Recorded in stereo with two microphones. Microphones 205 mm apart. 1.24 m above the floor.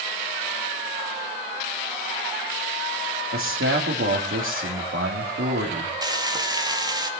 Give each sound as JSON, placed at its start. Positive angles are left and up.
{"t": 3.3, "sound": "a man speaking", "side_deg": -80, "distance_m": 2.5}
{"t": 6.0, "sound": "frying", "side_deg": -20, "distance_m": 2.5}